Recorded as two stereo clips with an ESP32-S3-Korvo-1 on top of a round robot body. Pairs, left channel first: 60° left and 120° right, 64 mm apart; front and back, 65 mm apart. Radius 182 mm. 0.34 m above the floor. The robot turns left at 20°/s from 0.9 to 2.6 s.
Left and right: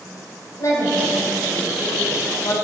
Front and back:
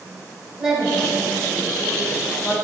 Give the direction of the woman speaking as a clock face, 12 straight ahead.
9 o'clock.